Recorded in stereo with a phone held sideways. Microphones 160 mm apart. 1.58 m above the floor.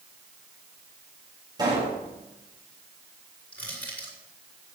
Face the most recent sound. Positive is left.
turn(degrees=10)  # may be behind; listen again after turning